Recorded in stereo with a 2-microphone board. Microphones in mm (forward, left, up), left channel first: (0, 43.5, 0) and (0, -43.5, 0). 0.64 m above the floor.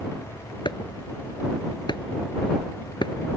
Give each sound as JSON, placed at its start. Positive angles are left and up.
{"t": 0.7, "sound": "chopping", "side_deg": 60}